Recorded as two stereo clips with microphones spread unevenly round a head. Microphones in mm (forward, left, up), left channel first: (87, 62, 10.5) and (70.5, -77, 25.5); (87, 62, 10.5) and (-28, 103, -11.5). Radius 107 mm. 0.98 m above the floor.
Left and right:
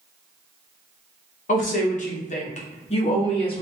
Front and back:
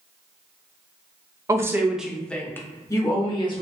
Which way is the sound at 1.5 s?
105° left.